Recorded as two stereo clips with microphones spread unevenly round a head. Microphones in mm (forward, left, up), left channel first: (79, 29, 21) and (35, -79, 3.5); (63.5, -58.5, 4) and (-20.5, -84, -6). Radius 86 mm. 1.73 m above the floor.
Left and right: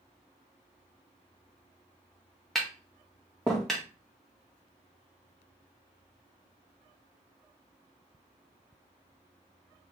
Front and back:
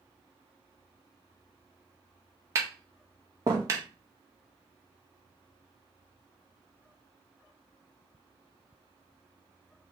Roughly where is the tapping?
Behind left.